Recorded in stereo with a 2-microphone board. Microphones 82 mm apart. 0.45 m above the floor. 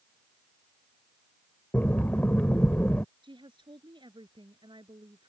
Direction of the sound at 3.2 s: 65° right (ahead or behind).